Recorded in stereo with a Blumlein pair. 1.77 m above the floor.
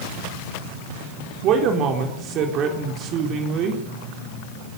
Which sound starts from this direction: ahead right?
A man speaking, at 1.4 s.